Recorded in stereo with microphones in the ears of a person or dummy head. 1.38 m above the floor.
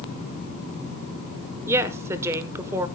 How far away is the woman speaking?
About 0.9 m.